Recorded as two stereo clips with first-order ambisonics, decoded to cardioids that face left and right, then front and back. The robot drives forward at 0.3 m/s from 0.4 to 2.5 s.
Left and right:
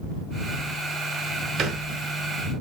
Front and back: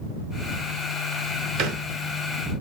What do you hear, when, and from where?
1.6 s a thud: 145° right, 0.8 m; by 1.9 s 150° right, 0.9 m